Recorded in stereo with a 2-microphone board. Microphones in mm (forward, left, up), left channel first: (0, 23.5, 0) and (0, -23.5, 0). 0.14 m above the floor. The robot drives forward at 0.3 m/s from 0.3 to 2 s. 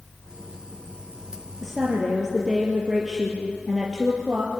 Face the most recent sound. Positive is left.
turn(degrees=-5)  # may be behind; listen again after turning